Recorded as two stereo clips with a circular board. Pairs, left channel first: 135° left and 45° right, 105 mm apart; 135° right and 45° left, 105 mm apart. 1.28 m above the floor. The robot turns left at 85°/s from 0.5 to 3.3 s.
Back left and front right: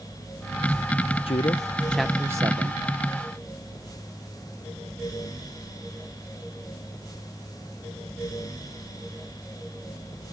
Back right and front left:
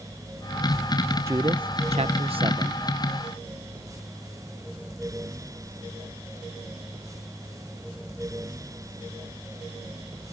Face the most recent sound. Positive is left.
turn(degrees=-60)